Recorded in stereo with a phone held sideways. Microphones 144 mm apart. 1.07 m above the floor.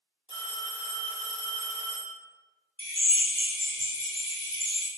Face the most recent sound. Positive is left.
turn(degrees=-40)  # may be behind; listen again after turning